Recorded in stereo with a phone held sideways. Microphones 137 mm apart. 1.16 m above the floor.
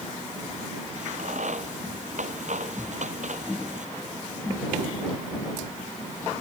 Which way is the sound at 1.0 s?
60° right (ahead or behind).